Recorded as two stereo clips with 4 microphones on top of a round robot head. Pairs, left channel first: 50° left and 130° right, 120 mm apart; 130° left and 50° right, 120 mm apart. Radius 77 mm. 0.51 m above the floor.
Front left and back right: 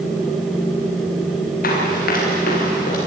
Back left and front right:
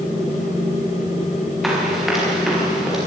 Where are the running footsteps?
40° left, 8.5 m; by 3.0 s 35° left, 10 m.